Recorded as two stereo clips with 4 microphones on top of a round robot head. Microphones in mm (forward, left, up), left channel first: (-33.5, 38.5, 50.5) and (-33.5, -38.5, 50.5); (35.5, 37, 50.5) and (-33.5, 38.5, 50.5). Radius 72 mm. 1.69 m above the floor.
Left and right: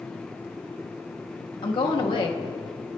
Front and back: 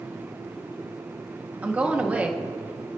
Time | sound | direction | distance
1.6 | a woman speaking | 110° left | 1.5 m